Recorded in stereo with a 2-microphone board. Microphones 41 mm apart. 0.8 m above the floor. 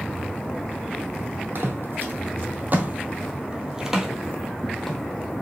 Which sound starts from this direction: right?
Footsteps, at 1.6 s.